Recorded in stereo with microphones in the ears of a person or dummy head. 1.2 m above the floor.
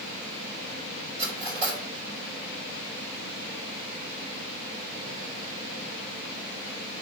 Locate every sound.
1.2 s cutlery clinking: 40° right (ahead or behind), 4 m